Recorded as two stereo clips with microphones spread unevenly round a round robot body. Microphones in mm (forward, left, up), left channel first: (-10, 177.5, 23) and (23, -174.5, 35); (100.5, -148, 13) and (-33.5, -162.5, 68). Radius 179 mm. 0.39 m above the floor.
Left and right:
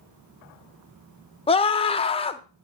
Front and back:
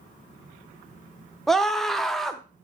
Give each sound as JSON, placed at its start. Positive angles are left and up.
{"t": 1.5, "sound": "a scream", "azimuth_deg": 40, "distance_m": 0.9}